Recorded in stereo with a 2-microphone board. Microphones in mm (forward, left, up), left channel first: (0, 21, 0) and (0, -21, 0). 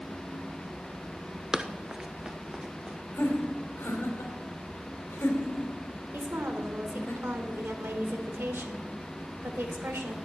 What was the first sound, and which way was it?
Running footsteps, 15° right (ahead or behind).